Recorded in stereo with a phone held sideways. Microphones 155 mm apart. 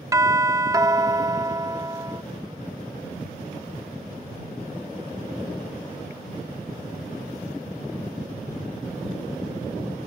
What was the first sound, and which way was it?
A doorbell, 20° right (ahead or behind).